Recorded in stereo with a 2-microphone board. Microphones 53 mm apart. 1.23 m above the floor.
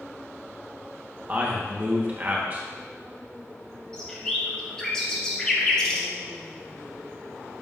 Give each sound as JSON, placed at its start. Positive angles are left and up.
{"t": 1.3, "sound": "a man speaking", "side_deg": -35, "distance_m": 1.3}
{"t": 3.9, "sound": "a bird", "side_deg": 10, "distance_m": 1.5}